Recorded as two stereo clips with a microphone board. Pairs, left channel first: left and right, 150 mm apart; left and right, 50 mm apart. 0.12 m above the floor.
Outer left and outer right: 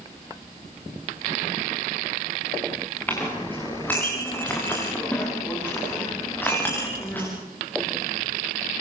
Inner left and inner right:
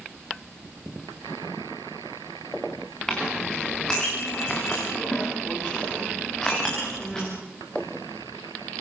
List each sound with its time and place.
3.1 s a clink: 10° left (ahead or behind), 8 m